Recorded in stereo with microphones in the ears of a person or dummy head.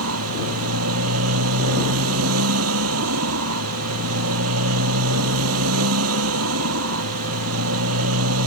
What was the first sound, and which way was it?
A motorcycle, 90° right.